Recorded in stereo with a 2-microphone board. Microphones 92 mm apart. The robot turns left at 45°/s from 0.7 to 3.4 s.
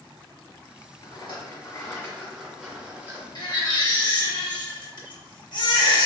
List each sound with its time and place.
1.0 s a rattle: 65° left, 1.2 m; by 3.2 s 35° right, 1.2 m
3.4 s a baby crying: 50° left (ahead or behind), 0.5 m